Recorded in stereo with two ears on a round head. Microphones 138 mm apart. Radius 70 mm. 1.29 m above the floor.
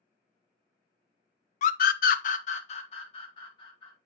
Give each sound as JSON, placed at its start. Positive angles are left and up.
{"t": 1.6, "sound": "a scream", "side_deg": 55, "distance_m": 0.6}